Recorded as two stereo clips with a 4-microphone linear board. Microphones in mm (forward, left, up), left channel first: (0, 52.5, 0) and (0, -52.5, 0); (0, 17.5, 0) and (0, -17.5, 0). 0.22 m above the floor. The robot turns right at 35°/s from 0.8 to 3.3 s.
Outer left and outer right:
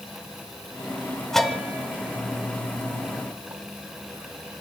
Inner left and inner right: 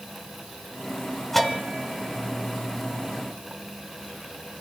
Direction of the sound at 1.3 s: 5° left (ahead or behind).